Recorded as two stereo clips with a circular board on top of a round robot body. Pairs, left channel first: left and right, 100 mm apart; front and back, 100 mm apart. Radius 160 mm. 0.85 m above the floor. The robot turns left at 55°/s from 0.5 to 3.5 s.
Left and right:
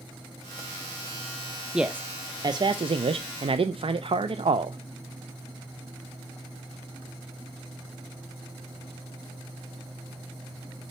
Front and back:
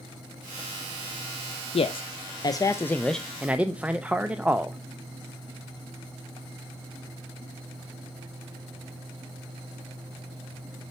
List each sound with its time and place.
1.7 s a man speaking: 5° right, 0.5 m; by 4.8 s 105° right, 0.5 m